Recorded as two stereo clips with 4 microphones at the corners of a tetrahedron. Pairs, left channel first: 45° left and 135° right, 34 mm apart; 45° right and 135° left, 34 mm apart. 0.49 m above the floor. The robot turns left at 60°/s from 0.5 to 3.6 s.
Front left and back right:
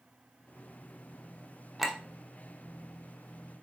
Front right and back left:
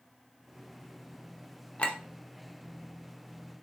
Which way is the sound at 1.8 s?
55° right.